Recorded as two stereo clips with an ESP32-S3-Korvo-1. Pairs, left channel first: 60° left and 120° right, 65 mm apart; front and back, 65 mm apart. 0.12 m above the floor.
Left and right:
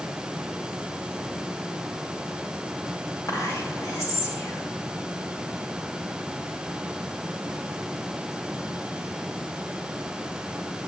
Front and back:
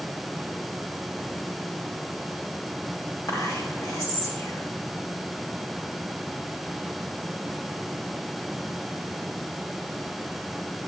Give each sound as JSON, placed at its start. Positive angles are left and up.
{"t": 3.3, "sound": "whispering", "azimuth_deg": 15, "distance_m": 5.5}